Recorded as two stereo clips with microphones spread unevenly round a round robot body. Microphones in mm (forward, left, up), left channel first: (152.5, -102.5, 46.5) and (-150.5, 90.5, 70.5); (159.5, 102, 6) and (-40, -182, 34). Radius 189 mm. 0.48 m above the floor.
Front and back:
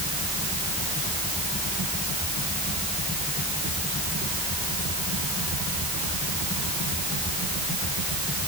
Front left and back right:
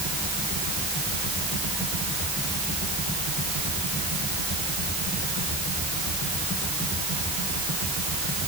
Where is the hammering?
No hammering in this recording.